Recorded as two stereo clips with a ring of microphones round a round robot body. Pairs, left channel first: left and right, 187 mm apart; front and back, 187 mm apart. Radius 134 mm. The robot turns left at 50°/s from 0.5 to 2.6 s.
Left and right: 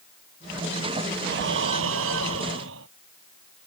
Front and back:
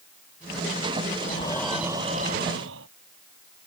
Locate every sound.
1.2 s breathing: 65° right; by 2.9 s 135° right